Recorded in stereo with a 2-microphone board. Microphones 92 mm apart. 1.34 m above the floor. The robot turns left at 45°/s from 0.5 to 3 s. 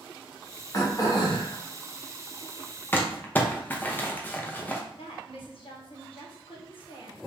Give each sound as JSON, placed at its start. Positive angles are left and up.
{"t": 0.7, "sound": "throat clearing", "azimuth_deg": 140, "distance_m": 0.8}
{"t": 2.9, "sound": "crumpling", "side_deg": 20, "distance_m": 0.6}
{"t": 4.9, "sound": "a woman speaking", "side_deg": 75, "distance_m": 1.2}